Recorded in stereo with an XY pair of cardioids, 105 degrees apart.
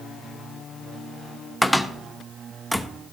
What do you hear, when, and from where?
1.6 s a cupboard door: 5° right, 0.9 m